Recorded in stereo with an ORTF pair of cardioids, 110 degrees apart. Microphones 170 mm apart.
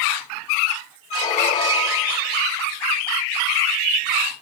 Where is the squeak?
45° left, 2.5 m.